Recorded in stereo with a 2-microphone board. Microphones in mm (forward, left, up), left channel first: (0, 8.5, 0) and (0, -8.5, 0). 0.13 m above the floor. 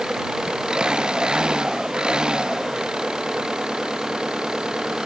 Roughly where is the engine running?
Right.